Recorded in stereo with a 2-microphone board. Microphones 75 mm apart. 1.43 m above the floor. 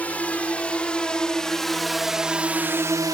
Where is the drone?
20° left (ahead or behind); by 3.1 s 55° right (ahead or behind).